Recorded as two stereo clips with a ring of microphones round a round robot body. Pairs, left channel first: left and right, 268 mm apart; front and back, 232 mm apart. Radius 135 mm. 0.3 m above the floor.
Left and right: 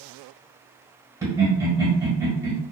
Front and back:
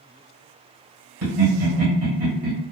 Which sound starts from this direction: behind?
Laughter, at 1.2 s.